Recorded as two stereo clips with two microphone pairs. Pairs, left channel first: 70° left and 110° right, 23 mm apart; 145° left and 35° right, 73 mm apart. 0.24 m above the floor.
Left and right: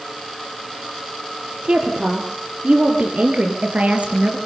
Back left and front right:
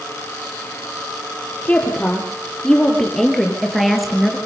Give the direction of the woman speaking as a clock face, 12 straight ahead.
5 o'clock.